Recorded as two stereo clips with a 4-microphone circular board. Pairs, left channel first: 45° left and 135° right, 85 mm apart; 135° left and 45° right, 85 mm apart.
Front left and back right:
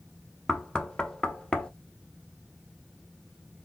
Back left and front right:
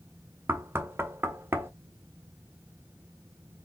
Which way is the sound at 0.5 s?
25° right.